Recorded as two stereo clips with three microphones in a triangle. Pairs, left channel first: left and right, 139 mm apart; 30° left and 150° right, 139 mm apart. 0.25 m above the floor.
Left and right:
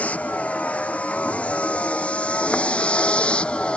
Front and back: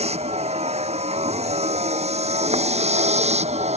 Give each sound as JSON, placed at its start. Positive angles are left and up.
{"t": 0.0, "sound": "a vehicle", "azimuth_deg": 170}